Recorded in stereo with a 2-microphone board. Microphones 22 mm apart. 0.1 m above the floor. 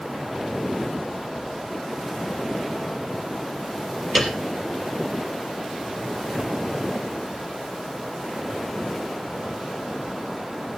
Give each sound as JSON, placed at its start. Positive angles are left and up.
{"t": 4.2, "sound": "a piano", "side_deg": 5, "distance_m": 3.0}